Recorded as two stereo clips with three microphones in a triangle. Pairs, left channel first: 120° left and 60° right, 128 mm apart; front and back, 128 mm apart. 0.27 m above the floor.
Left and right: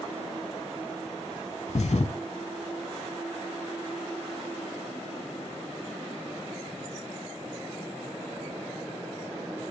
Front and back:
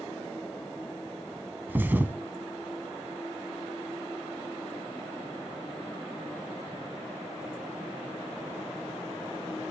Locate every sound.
1.7 s a thud: 105° left, 0.7 m